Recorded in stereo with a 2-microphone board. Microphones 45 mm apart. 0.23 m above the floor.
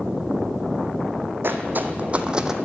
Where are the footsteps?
55° right (ahead or behind), 0.8 m; by 2.5 s 10° right (ahead or behind), 0.6 m.